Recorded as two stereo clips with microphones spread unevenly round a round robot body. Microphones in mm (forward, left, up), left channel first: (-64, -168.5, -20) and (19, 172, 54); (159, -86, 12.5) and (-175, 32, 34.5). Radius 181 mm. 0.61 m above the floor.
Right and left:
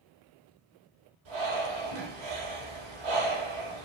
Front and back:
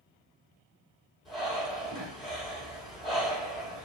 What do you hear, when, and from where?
1.2 s breathing: 70° left, 4 m